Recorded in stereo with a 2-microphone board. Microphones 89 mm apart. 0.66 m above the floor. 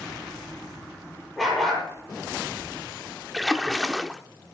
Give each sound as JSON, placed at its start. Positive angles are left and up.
{"t": 1.4, "sound": "a dog barking", "side_deg": 5, "distance_m": 5.5}
{"t": 3.3, "sound": "a splash", "side_deg": 0, "distance_m": 0.6}